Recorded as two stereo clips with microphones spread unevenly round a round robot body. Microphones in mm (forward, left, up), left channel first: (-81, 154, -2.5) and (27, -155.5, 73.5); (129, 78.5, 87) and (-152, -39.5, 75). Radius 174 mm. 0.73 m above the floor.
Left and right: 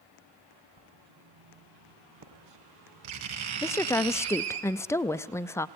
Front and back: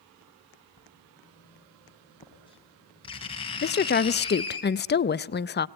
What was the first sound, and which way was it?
Writing, 50° right.